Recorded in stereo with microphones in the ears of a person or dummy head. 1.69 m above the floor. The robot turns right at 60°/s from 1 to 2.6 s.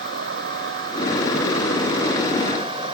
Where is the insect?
125° right; by 2.9 s 30° right.